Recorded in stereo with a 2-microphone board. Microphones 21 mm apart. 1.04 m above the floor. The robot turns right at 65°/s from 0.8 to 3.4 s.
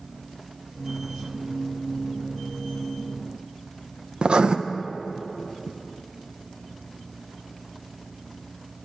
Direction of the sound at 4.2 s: 50° right (ahead or behind).